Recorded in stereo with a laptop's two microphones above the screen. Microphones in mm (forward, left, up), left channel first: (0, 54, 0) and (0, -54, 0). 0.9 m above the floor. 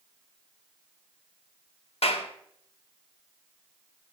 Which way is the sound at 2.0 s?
65° left (ahead or behind).